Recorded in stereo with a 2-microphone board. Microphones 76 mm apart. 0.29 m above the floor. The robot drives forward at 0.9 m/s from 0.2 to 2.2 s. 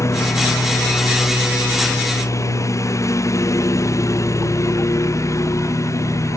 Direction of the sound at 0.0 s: 40° left (ahead or behind).